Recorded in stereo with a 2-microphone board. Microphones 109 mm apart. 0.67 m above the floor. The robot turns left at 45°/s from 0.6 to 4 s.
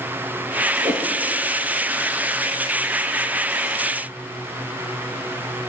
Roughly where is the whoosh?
Right.